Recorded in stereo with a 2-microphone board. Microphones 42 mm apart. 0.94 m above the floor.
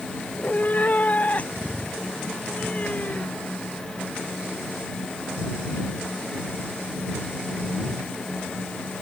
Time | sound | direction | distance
0.3 | a cat meowing | 40° left (ahead or behind) | ?